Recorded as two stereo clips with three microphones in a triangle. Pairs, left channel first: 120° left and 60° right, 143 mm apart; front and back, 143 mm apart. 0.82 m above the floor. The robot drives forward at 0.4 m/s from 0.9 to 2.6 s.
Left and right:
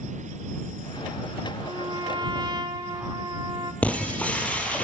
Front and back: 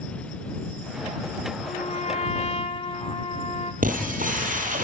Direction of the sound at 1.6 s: 10° right.